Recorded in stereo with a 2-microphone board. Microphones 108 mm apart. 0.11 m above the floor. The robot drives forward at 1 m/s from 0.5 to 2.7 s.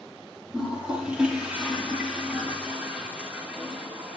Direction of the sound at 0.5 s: 10° right (ahead or behind).